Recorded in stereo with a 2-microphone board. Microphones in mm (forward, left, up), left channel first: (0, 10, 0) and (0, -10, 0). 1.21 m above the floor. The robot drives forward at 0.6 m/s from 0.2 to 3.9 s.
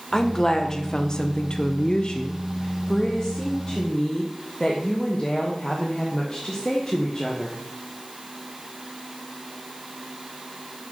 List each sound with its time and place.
0.1 s a woman speaking: 25° left (ahead or behind), 1.2 m; by 7.6 s 20° left (ahead or behind), 1.4 m